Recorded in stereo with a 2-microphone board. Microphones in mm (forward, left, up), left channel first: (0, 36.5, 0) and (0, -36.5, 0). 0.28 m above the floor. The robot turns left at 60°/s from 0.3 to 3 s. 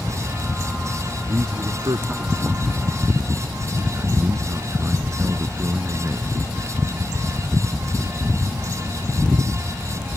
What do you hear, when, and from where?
1.3 s a man speaking: 40° right; by 6.4 s 145° right